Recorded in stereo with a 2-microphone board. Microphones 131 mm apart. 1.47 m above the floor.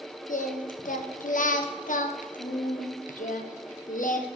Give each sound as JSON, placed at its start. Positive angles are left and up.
{"t": 0.3, "sound": "singing", "side_deg": 85, "distance_m": 0.8}